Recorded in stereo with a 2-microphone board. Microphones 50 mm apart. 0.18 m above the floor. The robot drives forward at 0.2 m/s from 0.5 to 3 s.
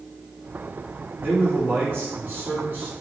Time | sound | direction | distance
1.2 | a man speaking | 45° right (ahead or behind) | 1.6 m